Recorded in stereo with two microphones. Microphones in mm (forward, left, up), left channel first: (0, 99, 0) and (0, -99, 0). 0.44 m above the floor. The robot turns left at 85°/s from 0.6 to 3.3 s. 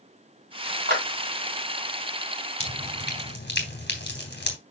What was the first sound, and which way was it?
A clap, 55° right (ahead or behind).